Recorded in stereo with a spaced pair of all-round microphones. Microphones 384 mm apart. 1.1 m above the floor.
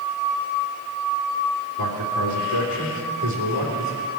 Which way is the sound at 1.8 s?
70° right (ahead or behind).